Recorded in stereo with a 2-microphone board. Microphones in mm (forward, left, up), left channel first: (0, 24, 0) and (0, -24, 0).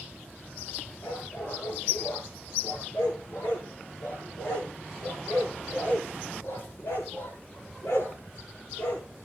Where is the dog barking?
70° left (ahead or behind), 7.5 m.